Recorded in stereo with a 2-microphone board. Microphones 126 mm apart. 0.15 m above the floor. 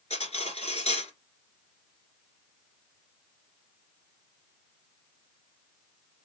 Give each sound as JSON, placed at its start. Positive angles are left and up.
{"t": 0.1, "sound": "cutlery clinking", "side_deg": 55, "distance_m": 1.3}